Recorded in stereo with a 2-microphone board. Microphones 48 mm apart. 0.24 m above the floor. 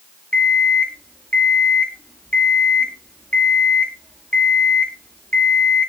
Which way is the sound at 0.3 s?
25° left (ahead or behind).